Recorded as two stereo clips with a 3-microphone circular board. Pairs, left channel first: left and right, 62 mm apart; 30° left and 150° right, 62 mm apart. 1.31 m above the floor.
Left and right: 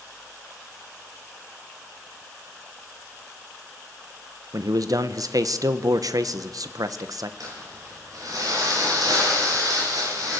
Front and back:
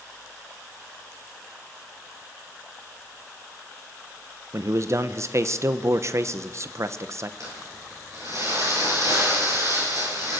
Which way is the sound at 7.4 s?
115° right.